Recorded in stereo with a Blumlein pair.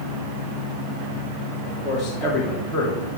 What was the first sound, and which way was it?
A man speaking, 25° left.